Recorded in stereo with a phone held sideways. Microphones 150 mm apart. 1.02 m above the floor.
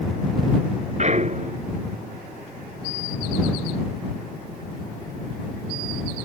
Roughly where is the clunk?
Right.